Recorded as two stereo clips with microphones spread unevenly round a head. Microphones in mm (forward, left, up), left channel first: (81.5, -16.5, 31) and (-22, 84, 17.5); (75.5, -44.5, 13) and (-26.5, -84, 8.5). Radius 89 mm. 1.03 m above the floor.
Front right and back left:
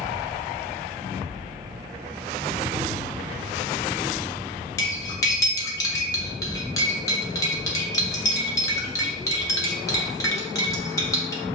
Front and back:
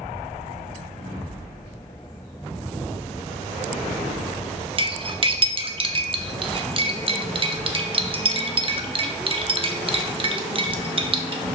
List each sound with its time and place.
4.8 s cutlery clinking: 115° right, 0.8 m